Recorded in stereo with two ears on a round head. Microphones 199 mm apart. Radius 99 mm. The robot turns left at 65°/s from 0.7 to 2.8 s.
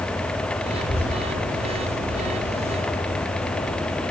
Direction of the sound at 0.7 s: 10° left (ahead or behind).